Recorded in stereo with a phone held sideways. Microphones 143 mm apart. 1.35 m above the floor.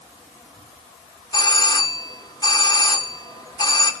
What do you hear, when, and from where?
1.3 s a doorbell: 30° left (ahead or behind), 1.1 m